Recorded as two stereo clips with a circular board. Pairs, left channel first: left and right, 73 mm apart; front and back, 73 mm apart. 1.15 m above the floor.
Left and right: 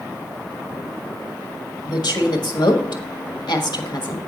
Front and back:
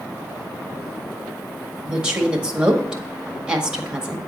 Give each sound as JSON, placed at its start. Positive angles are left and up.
{"t": 1.8, "sound": "a woman speaking", "azimuth_deg": 100, "distance_m": 1.5}